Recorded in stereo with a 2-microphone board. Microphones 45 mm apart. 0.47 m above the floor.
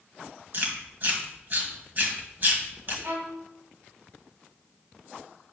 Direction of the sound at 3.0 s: 60° right (ahead or behind).